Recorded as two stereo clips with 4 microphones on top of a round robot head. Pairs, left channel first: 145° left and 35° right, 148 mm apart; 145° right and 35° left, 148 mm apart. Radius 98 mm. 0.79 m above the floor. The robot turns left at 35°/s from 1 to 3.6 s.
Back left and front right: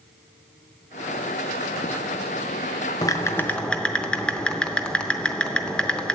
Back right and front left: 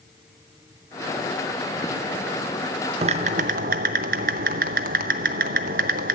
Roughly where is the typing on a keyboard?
Left.